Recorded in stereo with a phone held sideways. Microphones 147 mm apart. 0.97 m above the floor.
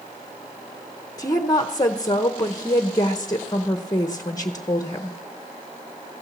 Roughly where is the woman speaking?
Left.